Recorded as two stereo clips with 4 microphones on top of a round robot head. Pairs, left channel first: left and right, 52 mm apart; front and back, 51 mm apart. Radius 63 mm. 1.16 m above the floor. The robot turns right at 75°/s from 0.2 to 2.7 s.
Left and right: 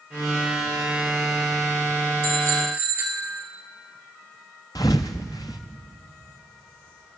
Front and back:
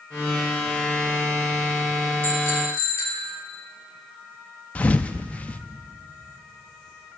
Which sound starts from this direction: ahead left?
A thud, at 4.8 s.